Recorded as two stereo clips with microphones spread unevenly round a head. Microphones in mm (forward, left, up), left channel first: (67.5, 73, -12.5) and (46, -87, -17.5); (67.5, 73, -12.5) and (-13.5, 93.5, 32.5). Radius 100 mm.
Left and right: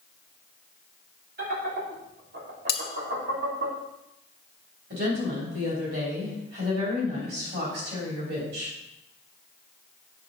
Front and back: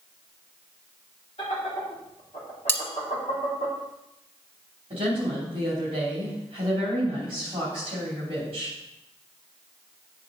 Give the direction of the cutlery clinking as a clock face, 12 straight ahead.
10 o'clock.